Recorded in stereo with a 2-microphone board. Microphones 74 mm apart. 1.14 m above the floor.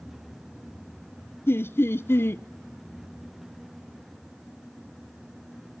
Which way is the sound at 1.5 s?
30° left (ahead or behind).